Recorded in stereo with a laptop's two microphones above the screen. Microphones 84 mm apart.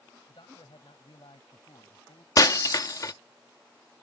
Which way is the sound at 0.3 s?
75° left (ahead or behind).